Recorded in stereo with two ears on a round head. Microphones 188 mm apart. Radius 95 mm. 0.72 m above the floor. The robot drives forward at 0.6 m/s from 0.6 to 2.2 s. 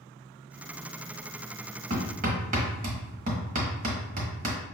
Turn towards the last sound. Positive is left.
turn(degrees=-40)  # may be behind; listen again after turning